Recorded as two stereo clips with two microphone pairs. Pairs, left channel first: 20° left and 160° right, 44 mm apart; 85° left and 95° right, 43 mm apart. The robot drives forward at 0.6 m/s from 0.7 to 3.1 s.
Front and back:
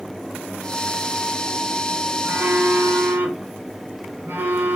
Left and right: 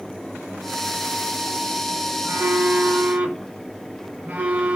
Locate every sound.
2.2 s a phone buzzing: 105° right, 0.6 m; by 4.8 s 140° right, 0.9 m